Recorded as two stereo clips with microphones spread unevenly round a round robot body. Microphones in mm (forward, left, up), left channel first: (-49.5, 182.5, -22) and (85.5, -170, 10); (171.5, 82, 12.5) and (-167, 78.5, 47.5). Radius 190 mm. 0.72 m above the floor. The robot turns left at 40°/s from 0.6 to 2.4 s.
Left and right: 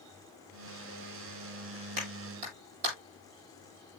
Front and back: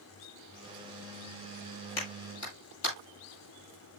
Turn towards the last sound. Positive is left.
turn(degrees=-50)